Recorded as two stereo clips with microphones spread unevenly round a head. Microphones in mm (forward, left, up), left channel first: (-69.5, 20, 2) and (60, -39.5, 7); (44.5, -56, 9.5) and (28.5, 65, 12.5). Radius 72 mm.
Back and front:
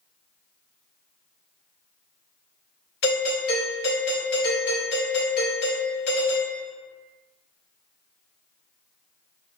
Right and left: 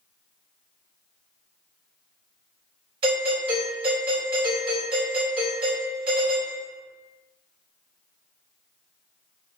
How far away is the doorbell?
About 1.9 m.